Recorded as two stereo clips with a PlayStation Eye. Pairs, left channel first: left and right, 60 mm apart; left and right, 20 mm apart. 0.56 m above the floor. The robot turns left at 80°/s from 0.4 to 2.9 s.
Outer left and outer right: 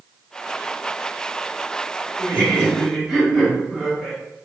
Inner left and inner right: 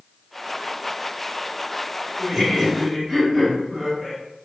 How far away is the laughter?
About 1.2 m.